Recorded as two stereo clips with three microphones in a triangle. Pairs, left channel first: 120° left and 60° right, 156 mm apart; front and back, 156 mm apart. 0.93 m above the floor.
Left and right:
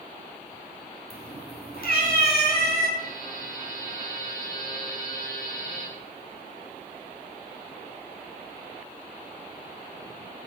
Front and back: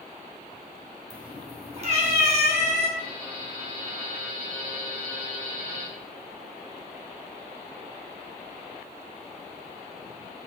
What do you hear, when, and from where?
1.1 s a cat meowing: 120° left, 3.5 m; by 2.9 s 145° left, 5.5 m
3.0 s a buzzer: 145° left, 6 m